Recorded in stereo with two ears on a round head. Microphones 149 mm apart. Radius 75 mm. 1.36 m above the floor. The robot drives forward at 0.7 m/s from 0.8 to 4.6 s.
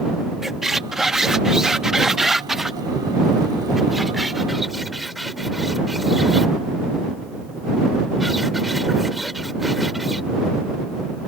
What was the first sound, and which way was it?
A squeak, 5° right (ahead or behind).